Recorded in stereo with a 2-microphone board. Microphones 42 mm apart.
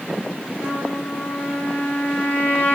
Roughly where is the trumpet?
Left.